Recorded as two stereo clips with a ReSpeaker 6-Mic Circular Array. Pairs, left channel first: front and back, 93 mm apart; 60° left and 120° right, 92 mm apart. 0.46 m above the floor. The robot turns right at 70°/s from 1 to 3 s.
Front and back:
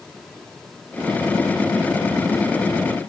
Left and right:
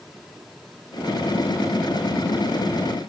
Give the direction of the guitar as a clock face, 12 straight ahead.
I don't hear a guitar.